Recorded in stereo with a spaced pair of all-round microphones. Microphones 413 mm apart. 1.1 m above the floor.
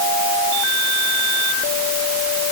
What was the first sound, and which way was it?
Only background noise.